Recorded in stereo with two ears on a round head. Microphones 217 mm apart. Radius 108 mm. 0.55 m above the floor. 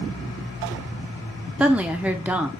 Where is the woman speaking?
5° right (ahead or behind), 1.0 m.